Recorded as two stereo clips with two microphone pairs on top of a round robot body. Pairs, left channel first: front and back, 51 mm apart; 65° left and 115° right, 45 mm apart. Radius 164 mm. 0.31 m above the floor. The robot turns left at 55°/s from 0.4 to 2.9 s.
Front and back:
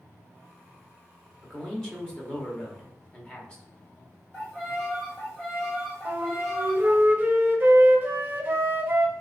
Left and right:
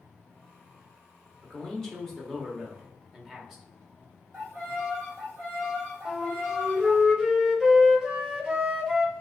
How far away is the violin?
About 1.4 m.